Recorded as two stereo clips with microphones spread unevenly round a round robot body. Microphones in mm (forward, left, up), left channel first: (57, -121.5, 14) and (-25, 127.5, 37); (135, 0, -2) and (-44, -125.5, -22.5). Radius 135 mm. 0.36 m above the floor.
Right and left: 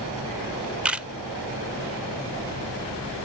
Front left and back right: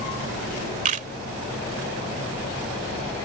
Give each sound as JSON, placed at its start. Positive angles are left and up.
{"t": 0.8, "sound": "a camera shutter", "azimuth_deg": -160}